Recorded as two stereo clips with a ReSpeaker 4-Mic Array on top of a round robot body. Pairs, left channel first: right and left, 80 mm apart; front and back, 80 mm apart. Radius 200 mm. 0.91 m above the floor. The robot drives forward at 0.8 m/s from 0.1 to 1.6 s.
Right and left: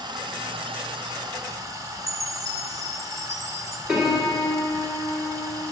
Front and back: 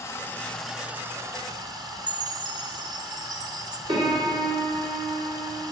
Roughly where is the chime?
Behind left.